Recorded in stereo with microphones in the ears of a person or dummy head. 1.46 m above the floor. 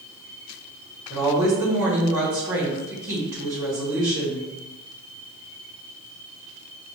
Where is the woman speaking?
20° right (ahead or behind), 1.4 m.